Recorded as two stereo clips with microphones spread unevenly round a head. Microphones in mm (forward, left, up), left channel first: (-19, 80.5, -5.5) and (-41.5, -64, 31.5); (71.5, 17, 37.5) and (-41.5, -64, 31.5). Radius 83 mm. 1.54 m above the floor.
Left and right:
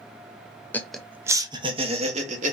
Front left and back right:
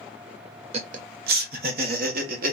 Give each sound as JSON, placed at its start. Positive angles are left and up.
{"t": 0.7, "sound": "laughter", "azimuth_deg": 170, "distance_m": 0.5}